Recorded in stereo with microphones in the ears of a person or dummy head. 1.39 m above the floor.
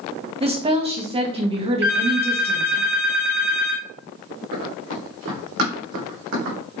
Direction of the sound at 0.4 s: 25° right (ahead or behind).